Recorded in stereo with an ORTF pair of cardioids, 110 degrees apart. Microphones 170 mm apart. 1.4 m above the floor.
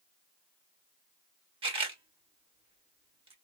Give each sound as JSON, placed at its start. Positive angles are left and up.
{"t": 1.6, "sound": "a camera shutter", "azimuth_deg": -30, "distance_m": 1.1}